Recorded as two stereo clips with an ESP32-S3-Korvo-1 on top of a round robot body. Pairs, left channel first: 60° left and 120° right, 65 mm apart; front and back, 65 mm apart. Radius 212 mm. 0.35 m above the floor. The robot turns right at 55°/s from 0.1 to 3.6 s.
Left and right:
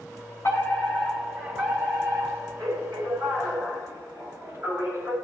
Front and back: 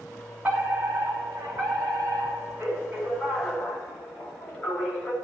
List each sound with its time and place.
0.4 s a fire alarm: 110° left, 8.5 m; by 5.1 s 75° right, 8.5 m